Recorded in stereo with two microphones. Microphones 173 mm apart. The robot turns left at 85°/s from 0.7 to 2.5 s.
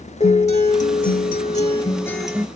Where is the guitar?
130° left, 0.7 m; by 2.5 s 20° right, 0.7 m.